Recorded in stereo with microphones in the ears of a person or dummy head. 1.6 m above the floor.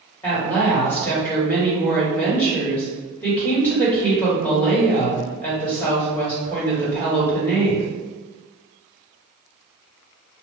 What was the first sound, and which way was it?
A woman speaking, 10° left (ahead or behind).